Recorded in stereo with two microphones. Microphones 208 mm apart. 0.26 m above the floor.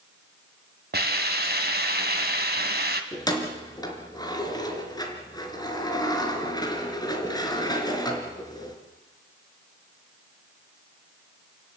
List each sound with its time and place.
0.9 s a hiss: 45° right (ahead or behind), 2 m
3.1 s keys jangling: 20° left (ahead or behind), 3 m